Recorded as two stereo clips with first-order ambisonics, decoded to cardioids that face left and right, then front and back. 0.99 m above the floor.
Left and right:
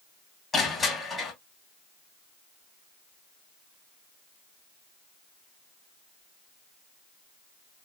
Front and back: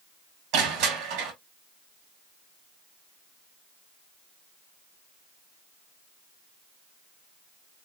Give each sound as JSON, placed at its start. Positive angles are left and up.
{"t": 0.5, "sound": "crushing", "azimuth_deg": 165, "distance_m": 1.7}